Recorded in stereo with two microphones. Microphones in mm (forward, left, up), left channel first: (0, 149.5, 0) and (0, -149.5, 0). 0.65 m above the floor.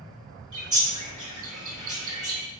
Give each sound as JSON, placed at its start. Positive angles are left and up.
{"t": 0.5, "sound": "a bird", "side_deg": -65, "distance_m": 2.5}